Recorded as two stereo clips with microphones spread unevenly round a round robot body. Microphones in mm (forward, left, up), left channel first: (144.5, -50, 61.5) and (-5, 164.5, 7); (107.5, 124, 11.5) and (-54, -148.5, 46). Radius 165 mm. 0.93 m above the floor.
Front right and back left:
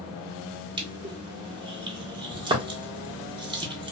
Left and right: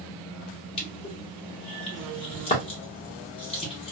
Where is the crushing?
100° left, 1.0 m.